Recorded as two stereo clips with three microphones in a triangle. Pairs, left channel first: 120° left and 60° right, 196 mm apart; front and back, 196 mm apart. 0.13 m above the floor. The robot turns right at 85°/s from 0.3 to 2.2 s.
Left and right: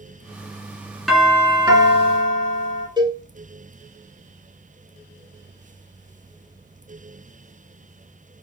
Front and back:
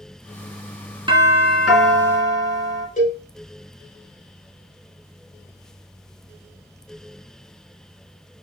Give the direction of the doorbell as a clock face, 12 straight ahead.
5 o'clock.